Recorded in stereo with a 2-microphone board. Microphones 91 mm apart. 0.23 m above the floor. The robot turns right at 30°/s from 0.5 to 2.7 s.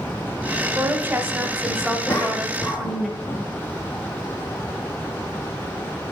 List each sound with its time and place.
0.8 s a woman speaking: 60° right, 1.0 m; by 3.1 s straight ahead, 1.0 m
2.1 s a cough: 20° left (ahead or behind), 1.5 m; by 3.5 s 5° left (ahead or behind), 1.5 m